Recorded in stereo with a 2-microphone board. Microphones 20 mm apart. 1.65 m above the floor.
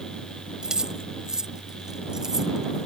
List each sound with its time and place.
0.6 s keys jangling: 45° right (ahead or behind); by 2.9 s 30° right (ahead or behind)